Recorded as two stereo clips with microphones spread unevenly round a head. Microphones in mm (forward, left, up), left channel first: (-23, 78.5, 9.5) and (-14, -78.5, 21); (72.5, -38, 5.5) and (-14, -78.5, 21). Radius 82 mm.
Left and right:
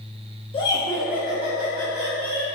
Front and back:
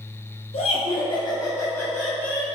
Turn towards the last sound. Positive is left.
turn(degrees=-65)